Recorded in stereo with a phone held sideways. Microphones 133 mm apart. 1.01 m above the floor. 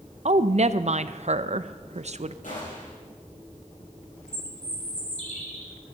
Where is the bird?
60° left (ahead or behind), 3.5 m.